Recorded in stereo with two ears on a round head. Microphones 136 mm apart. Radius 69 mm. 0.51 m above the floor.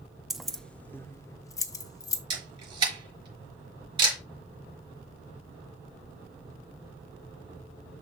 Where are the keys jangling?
5° right (ahead or behind), 0.5 m; by 2.2 s 20° left (ahead or behind), 0.9 m.